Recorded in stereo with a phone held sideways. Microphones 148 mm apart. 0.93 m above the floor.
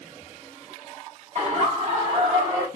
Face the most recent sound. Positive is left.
turn(degrees=-25)  # may be behind; listen again after turning